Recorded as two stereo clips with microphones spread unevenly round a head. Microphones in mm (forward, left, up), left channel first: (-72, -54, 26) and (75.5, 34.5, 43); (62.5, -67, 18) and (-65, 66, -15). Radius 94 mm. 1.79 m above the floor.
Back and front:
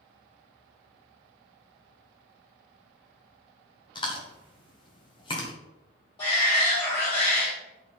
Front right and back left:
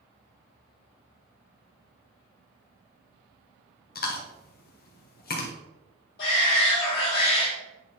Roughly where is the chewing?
Right.